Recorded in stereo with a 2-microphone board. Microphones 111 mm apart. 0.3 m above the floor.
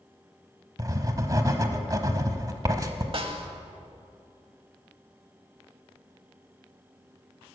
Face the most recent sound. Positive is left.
turn(degrees=-55)  # may be behind; listen again after turning